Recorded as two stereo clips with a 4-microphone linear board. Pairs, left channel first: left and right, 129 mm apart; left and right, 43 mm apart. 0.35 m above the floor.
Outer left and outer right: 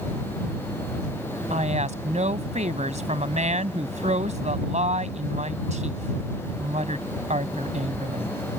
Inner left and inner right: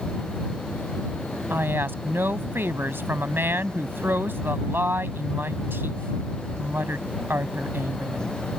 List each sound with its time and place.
1.5 s a woman speaking: 65° right (ahead or behind)